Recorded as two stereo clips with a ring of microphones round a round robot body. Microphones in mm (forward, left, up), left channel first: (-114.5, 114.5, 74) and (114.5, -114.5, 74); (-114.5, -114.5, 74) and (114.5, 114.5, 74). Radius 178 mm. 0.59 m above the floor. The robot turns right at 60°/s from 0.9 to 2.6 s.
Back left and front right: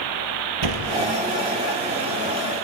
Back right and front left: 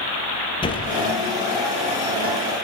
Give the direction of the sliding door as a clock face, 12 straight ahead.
2 o'clock.